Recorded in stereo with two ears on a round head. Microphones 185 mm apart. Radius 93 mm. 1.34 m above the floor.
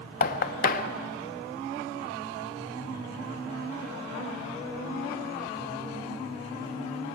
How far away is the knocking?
About 1.0 m.